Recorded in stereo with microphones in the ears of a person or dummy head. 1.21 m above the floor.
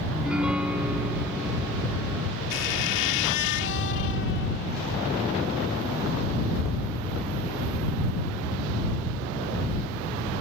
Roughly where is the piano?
Centre.